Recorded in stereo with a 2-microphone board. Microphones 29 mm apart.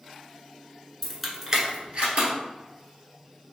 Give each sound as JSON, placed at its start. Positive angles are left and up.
{"t": 1.0, "sound": "keys jangling", "side_deg": 10, "distance_m": 0.8}